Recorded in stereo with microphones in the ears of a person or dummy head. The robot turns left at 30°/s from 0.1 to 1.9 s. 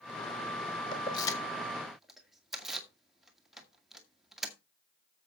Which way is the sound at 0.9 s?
20° left (ahead or behind).